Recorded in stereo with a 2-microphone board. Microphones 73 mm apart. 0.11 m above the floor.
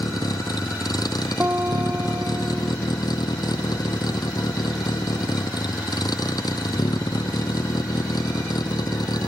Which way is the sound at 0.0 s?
70° left (ahead or behind).